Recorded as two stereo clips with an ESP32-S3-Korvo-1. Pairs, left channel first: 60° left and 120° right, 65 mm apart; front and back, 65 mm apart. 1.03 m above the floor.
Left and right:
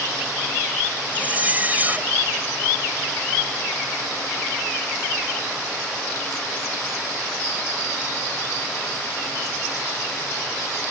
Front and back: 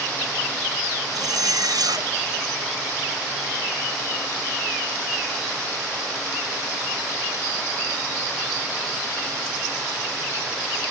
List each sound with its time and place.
1.1 s a zipper: 175° left